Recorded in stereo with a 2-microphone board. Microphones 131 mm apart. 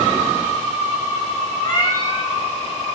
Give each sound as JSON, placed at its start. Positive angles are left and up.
{"t": 1.6, "sound": "a cat meowing", "side_deg": 30, "distance_m": 1.6}